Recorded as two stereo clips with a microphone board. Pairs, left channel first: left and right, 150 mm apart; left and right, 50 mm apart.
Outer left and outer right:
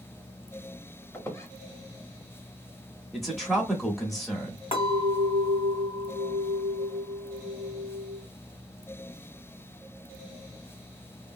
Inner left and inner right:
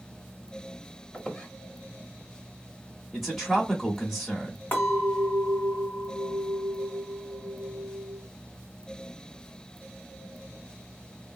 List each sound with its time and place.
1.1 s a squeak: 20° left (ahead or behind), 0.8 m
3.1 s a man speaking: centre (ahead or behind), 1.2 m
4.7 s a clink: 40° left (ahead or behind), 1.8 m